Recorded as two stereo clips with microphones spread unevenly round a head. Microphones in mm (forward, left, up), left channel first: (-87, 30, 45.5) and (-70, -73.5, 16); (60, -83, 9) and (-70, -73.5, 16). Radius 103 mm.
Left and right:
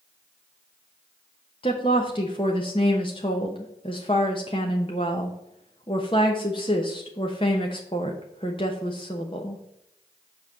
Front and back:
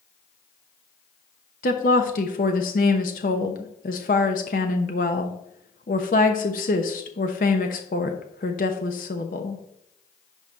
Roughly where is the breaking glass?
No breaking glass in this recording.